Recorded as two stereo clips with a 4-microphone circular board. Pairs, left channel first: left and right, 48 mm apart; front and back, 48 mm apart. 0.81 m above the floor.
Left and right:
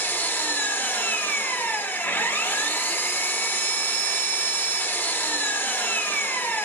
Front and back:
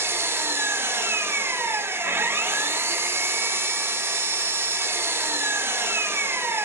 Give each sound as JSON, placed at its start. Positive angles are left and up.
{"t": 0.0, "sound": "an engine running", "azimuth_deg": 140, "distance_m": 0.8}